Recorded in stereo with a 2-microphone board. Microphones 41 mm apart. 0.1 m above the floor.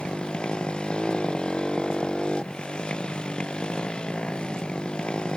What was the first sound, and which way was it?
A motorcycle, 20° left (ahead or behind).